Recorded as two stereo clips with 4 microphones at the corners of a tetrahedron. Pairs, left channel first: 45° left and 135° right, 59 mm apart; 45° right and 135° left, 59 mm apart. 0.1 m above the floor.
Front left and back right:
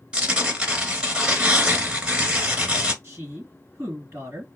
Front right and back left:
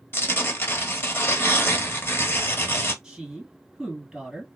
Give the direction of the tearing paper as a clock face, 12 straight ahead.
2 o'clock.